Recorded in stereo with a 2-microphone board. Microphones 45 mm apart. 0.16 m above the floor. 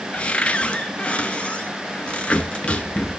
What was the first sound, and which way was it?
A cupboard door, 30° left (ahead or behind).